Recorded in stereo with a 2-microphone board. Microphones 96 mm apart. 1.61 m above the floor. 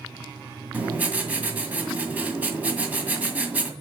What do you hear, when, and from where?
0.7 s writing: 15° right (ahead or behind), 1.9 m